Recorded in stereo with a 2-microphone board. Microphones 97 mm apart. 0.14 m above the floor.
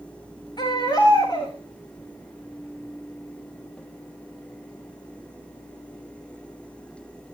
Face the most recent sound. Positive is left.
turn(degrees=45)  # may be behind; listen again after turning